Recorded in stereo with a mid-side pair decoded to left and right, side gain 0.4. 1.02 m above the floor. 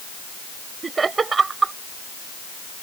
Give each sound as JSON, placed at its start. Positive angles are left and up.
{"t": 0.8, "sound": "laughter", "azimuth_deg": -40}